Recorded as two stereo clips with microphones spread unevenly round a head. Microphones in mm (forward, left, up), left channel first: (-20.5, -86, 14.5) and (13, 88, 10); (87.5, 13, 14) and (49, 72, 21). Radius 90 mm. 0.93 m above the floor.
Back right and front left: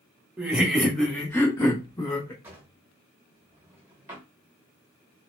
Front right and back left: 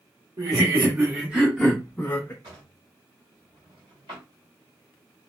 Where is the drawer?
155° left, 1.2 m.